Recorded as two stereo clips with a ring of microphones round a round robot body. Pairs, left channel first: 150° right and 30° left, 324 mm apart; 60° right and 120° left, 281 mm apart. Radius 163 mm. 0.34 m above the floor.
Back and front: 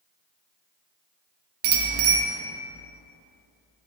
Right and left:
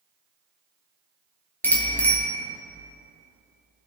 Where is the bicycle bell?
25° left, 4 m.